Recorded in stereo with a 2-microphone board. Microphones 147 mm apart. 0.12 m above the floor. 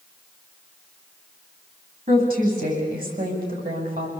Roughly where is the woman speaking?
Right.